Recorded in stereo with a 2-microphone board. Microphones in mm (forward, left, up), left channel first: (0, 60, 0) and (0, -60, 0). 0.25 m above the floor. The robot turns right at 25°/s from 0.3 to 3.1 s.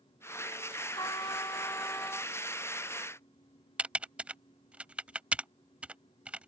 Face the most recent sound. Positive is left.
turn(degrees=-10)  # may be behind; listen again after turning